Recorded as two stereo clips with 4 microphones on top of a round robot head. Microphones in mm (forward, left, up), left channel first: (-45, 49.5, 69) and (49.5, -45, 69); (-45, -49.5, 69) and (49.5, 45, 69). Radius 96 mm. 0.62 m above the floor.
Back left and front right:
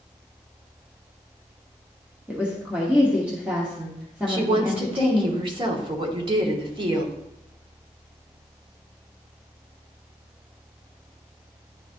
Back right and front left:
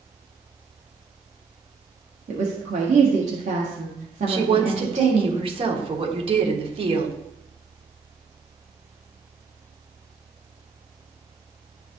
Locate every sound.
2.3 s a woman speaking: 35° left, 1.3 m
4.3 s a woman speaking: 5° left, 1.4 m